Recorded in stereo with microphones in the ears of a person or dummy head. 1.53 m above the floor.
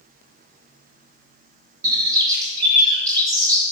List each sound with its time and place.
1.8 s a bird: 25° right (ahead or behind), 2.5 m